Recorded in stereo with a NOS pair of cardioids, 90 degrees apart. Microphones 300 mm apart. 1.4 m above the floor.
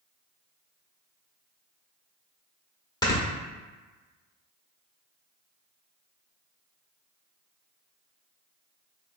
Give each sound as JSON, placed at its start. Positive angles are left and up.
{"t": 3.0, "sound": "snoring", "azimuth_deg": 15, "distance_m": 1.0}